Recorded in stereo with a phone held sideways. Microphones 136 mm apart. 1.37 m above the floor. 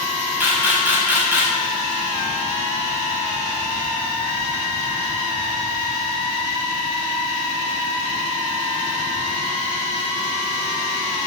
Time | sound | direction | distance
0.4 | a camera shutter | 15° right (ahead or behind) | 6 m